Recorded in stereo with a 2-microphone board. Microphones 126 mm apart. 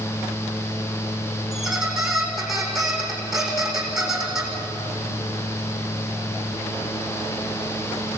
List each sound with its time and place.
1.5 s a squeak: centre (ahead or behind), 4.5 m